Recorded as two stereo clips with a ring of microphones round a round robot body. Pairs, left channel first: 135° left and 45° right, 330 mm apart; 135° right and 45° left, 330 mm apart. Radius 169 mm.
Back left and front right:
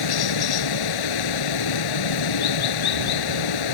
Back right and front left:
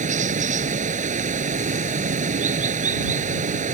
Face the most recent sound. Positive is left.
turn(degrees=115)